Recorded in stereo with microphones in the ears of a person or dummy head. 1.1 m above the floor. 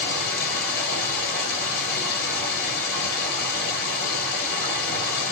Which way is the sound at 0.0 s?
55° left (ahead or behind).